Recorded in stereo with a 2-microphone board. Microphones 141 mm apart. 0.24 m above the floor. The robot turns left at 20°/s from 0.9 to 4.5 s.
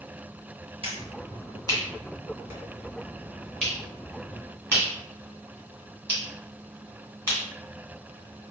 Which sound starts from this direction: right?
A finger snap, at 0.8 s.